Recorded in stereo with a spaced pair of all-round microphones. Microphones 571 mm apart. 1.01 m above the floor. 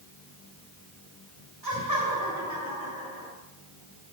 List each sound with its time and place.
1.6 s laughter: 40° right (ahead or behind), 3.5 m; by 3.3 s 20° right (ahead or behind), 3.5 m